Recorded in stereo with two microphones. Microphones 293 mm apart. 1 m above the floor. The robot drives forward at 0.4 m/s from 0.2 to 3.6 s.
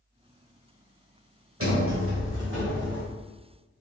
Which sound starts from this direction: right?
A sliding door, at 1.6 s.